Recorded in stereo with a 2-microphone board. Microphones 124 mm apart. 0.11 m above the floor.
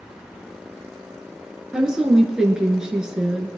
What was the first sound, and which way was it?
A woman speaking, 5° right (ahead or behind).